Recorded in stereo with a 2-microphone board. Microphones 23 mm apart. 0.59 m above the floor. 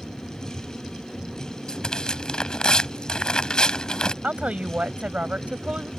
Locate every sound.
1.7 s tearing paper: 40° left (ahead or behind)
4.2 s a woman speaking: 75° right (ahead or behind)